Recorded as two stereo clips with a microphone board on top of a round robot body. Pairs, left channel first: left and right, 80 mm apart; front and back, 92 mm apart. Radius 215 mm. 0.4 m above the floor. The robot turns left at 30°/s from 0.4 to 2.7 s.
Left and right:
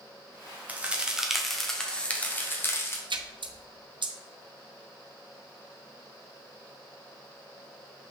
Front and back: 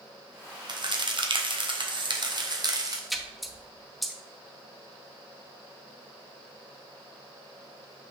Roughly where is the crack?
Behind right.